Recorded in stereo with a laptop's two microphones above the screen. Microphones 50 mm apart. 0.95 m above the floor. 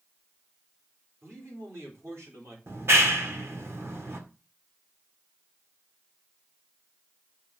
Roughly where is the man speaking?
Right.